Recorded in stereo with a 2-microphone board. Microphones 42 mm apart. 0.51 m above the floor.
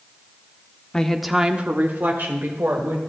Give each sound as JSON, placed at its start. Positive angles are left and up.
{"t": 0.9, "sound": "a woman speaking", "side_deg": 15, "distance_m": 0.9}